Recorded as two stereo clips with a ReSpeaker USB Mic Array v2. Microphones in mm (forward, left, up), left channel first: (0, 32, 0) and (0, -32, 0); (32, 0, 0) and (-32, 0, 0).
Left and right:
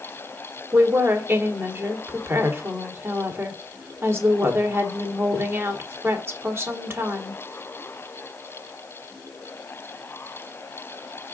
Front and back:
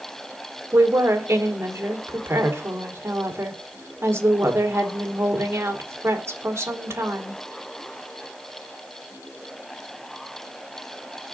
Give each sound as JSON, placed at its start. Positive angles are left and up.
{"t": 0.7, "sound": "a woman speaking", "azimuth_deg": -135, "distance_m": 1.8}